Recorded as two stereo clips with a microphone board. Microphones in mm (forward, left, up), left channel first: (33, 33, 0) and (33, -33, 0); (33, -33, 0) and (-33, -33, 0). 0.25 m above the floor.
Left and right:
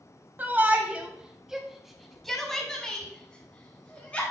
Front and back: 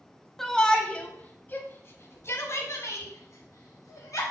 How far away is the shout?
About 1.1 m.